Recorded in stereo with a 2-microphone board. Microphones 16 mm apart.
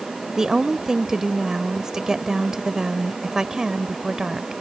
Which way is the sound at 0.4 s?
40° right (ahead or behind).